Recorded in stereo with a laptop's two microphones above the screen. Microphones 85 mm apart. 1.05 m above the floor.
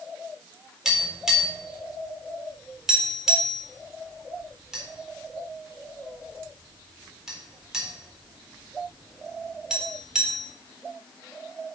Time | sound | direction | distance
0.8 | tapping | 5° right (ahead or behind) | 4 m